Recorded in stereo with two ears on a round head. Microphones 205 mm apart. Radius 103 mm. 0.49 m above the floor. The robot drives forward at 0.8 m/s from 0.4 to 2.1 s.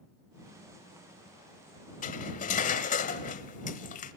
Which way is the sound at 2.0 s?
35° left (ahead or behind).